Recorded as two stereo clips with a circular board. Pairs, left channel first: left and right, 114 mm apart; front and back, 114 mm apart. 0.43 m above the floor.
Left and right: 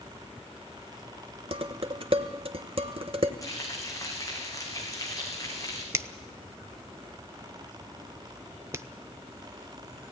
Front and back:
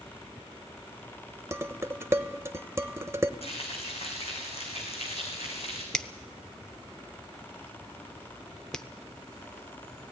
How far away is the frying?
About 4.5 m.